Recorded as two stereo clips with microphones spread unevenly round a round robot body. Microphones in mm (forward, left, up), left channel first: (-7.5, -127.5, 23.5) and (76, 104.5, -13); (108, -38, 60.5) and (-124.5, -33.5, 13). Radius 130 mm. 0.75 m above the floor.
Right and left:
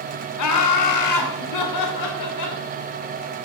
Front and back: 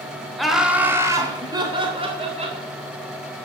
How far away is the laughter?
About 2 m.